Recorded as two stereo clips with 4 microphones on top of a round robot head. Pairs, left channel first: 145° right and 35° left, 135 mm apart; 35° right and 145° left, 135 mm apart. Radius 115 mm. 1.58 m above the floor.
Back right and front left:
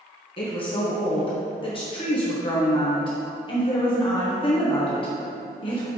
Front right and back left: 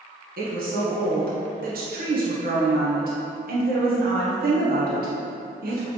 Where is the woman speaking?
160° left, 1.1 m.